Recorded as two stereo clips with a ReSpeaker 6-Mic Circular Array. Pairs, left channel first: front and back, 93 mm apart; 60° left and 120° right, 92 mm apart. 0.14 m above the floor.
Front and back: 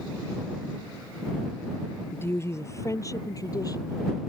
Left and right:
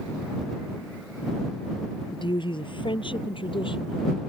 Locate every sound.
2.1 s a woman speaking: 60° left; by 4.2 s 45° left